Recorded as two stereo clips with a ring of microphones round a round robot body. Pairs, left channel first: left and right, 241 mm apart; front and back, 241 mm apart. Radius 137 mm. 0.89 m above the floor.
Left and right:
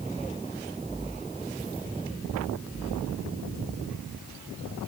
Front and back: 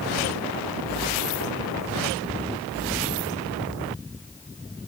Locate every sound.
Only background noise.